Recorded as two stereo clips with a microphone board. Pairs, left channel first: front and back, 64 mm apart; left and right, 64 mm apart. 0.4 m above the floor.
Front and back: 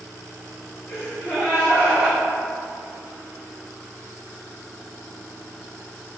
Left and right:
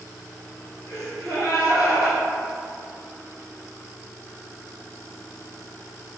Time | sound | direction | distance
0.9 | a gasp | 55° left | 1.3 m